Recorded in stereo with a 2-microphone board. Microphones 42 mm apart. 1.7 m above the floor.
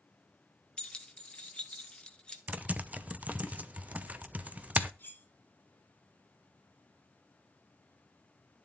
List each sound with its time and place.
0.8 s keys jangling: 30° left (ahead or behind), 1.3 m
2.5 s typing on a keyboard: 40° right (ahead or behind), 0.8 m
5.0 s cutlery clinking: 50° left (ahead or behind), 4 m